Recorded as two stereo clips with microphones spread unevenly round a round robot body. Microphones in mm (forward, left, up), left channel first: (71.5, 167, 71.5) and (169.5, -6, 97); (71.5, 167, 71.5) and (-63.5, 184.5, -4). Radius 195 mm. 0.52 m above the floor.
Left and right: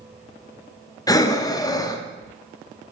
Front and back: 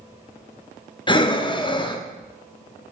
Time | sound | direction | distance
1.1 | breathing | 80° left | 0.7 m